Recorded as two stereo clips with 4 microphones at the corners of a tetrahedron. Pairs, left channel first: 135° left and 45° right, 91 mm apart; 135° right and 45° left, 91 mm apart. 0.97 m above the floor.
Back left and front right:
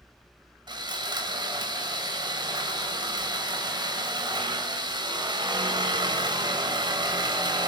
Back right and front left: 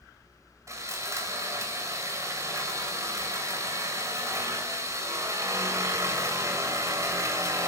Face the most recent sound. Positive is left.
turn(degrees=-10)